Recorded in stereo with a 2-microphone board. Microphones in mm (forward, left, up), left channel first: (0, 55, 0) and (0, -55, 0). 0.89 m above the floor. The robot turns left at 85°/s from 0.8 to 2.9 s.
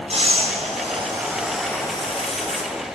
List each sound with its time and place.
0.1 s breathing: 115° right, 3 m; by 2.6 s 85° left, 3 m